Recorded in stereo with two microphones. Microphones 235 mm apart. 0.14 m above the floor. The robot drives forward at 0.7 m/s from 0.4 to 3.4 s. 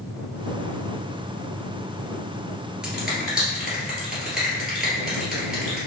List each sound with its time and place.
2.8 s a finger snap: 5° right (ahead or behind), 1.7 m